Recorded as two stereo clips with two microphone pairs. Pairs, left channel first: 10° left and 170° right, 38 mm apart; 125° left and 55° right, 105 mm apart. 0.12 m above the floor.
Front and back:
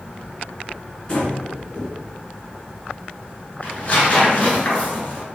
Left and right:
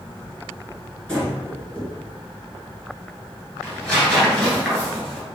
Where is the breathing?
50° left, 1.2 m.